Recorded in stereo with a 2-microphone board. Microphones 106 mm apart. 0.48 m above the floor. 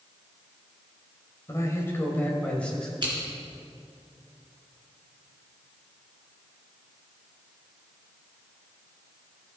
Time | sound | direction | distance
1.5 | a man speaking | 30° left (ahead or behind) | 2 m
3.0 | scissors | 45° right (ahead or behind) | 3.5 m